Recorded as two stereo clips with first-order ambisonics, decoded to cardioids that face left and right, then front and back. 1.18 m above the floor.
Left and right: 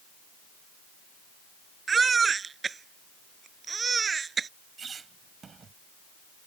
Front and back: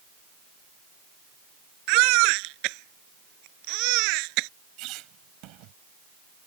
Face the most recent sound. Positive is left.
turn(degrees=-155)